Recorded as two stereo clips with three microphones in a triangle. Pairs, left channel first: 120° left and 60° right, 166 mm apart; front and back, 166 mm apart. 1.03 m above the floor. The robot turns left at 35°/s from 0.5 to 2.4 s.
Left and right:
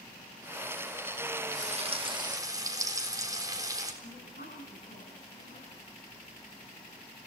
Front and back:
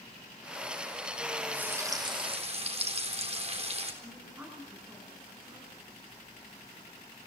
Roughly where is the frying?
Right.